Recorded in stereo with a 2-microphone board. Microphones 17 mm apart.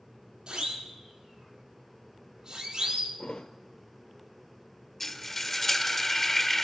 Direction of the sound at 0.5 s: 65° right (ahead or behind).